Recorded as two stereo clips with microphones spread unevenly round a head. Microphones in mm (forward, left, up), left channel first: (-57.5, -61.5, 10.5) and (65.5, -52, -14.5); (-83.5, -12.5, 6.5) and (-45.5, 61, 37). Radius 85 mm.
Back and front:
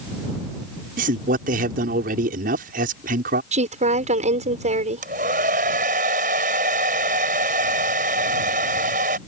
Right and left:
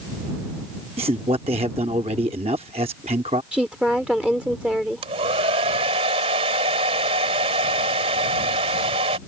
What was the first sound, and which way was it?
A man speaking, 15° left.